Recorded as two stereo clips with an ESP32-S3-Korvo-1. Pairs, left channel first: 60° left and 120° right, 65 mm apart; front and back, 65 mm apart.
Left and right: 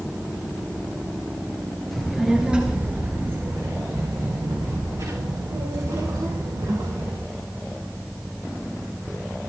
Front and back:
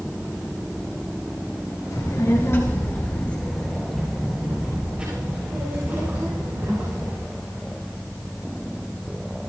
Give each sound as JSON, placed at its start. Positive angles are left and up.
{"t": 1.9, "sound": "a child speaking", "azimuth_deg": -30, "distance_m": 3.0}